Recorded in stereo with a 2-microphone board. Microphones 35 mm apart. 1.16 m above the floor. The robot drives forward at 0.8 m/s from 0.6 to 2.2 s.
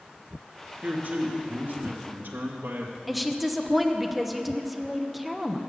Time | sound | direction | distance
0.8 | a man speaking | 55° right (ahead or behind) | 2 m
3.1 | a woman speaking | 5° right (ahead or behind) | 0.9 m